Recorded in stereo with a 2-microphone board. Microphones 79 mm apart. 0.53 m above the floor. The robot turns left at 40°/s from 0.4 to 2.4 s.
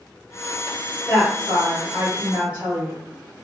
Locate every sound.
1.1 s a woman speaking: centre (ahead or behind), 1.3 m; by 3.4 s 20° right (ahead or behind), 1.3 m